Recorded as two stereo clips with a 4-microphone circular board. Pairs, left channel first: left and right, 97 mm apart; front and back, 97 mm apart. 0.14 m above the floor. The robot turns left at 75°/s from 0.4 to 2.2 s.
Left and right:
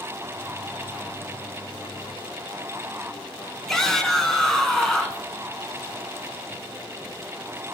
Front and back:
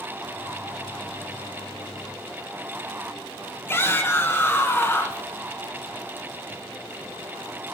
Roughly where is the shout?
Ahead.